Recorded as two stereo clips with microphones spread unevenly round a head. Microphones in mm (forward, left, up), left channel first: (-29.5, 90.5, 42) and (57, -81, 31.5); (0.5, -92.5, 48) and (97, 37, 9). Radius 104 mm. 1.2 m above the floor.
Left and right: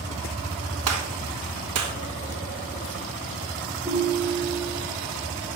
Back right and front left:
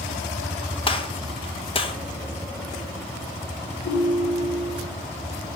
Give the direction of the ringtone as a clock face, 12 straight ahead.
4 o'clock.